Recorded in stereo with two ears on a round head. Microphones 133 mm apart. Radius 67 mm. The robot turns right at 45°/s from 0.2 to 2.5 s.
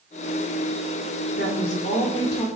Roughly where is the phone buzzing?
I don't hear a phone buzzing.